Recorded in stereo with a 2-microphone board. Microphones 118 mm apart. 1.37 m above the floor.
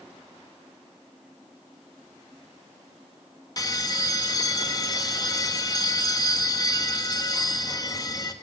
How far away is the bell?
About 1.4 m.